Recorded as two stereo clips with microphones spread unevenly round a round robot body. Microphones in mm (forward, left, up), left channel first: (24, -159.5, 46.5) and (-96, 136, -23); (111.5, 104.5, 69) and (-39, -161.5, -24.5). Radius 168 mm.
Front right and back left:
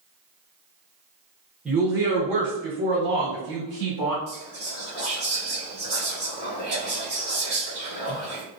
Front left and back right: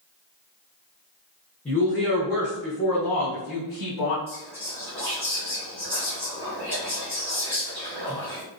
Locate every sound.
1.6 s a woman speaking: 175° left, 0.9 m; by 4.2 s 80° left, 1.5 m
4.3 s whispering: 155° left, 1.9 m